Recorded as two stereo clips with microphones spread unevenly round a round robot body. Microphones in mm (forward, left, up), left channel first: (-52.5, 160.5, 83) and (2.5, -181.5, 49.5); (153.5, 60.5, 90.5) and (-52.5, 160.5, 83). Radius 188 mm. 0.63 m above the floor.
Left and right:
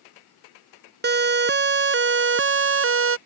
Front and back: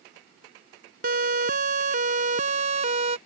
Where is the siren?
145° right; by 3.2 s 135° right.